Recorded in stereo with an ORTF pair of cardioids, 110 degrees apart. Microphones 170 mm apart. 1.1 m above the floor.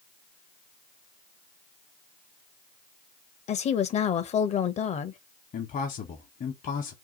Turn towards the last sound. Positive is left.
turn(degrees=50)